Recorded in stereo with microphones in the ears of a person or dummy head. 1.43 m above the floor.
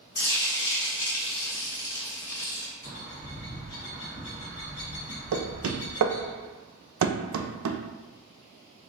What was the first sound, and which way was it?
Frying, 20° left (ahead or behind).